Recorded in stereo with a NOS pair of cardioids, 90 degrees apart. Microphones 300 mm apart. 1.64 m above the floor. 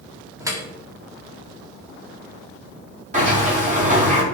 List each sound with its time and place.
0.4 s dripping: 10° right, 3 m
3.1 s a sliding door: 25° right, 5 m